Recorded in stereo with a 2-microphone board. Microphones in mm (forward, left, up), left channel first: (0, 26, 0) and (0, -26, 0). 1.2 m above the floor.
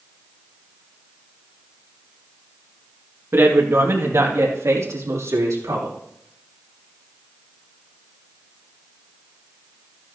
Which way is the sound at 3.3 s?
50° right (ahead or behind).